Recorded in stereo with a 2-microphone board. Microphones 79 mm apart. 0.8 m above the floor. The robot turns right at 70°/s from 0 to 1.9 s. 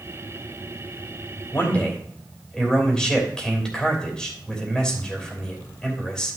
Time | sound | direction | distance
1.5 | a man speaking | 35° left (ahead or behind) | 3 m